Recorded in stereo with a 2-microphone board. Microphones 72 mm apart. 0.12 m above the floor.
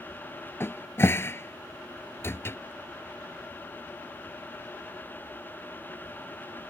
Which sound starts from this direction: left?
A cupboard door, at 0.6 s.